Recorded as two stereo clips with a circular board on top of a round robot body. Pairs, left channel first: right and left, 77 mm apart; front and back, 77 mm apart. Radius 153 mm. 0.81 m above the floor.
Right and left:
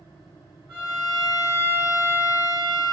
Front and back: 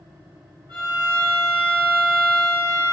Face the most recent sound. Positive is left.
turn(degrees=150)